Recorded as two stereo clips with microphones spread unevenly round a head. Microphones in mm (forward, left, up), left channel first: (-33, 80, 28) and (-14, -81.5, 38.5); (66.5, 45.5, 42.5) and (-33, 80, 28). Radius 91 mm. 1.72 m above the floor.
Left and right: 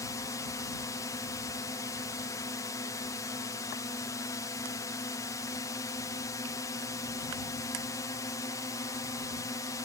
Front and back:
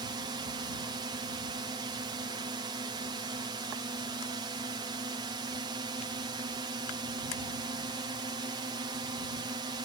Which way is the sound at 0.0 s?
160° left.